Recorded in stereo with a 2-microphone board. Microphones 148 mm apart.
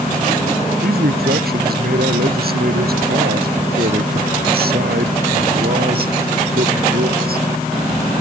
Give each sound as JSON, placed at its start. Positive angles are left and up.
{"t": 0.8, "sound": "a man speaking", "side_deg": -80}